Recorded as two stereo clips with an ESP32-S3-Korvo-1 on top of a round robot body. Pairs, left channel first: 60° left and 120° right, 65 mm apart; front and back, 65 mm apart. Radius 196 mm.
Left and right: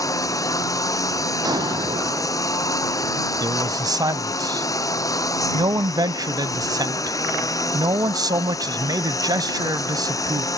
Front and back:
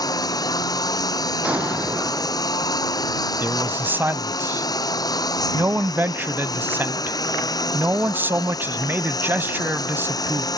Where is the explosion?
110° right.